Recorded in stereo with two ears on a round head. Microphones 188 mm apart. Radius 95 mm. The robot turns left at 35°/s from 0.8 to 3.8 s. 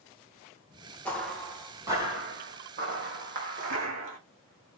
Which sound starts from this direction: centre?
Footsteps, at 1.1 s.